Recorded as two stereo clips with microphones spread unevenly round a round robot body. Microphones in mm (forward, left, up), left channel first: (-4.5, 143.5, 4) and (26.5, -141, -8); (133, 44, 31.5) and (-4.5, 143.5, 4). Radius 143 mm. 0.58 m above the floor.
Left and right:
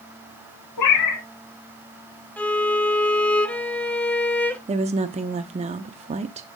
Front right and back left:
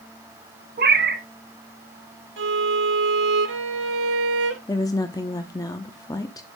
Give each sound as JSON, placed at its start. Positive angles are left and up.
{"t": 0.8, "sound": "a cat meowing", "azimuth_deg": 120, "distance_m": 1.7}
{"t": 2.4, "sound": "a violin", "azimuth_deg": 180, "distance_m": 0.6}
{"t": 4.7, "sound": "a woman speaking", "azimuth_deg": -100, "distance_m": 0.6}